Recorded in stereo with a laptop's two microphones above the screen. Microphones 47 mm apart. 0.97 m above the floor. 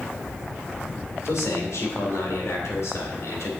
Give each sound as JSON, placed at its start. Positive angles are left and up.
{"t": 1.2, "sound": "a man speaking", "side_deg": 80, "distance_m": 2.5}